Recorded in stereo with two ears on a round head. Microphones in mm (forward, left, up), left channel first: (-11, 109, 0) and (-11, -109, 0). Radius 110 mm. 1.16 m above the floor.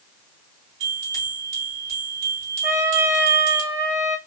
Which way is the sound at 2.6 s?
10° right (ahead or behind).